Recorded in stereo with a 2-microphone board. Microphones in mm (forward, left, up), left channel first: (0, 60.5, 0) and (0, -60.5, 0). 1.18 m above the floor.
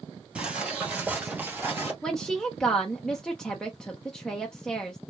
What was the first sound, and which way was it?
Footsteps, 10° right (ahead or behind).